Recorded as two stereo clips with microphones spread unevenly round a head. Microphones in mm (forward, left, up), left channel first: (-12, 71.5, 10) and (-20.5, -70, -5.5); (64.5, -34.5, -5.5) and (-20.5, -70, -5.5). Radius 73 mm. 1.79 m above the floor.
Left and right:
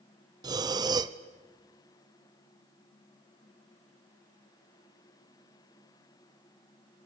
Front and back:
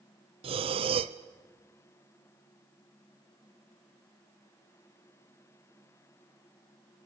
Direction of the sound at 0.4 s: 160° right.